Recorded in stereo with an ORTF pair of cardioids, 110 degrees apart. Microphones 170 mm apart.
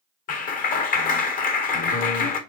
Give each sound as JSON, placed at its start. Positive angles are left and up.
{"t": 0.3, "sound": "a clap", "azimuth_deg": 55, "distance_m": 0.8}